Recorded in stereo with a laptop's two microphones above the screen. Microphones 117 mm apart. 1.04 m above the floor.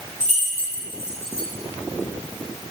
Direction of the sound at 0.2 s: 80° right.